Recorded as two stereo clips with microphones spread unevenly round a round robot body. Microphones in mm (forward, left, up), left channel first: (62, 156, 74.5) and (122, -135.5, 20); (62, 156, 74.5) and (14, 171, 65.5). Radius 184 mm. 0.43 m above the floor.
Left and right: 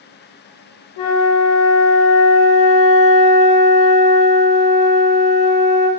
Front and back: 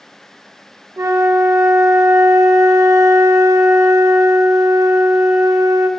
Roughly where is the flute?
Behind left.